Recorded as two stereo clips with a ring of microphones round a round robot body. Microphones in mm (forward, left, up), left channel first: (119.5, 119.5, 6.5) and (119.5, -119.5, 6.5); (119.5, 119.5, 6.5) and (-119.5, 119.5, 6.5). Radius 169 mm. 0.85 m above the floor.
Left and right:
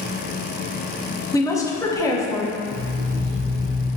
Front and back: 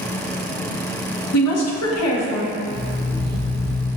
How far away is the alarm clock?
About 1.6 m.